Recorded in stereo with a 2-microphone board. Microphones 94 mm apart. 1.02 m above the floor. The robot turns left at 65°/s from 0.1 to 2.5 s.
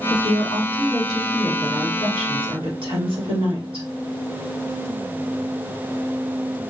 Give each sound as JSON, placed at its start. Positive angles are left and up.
{"t": 0.1, "sound": "a woman speaking", "azimuth_deg": 65, "distance_m": 1.9}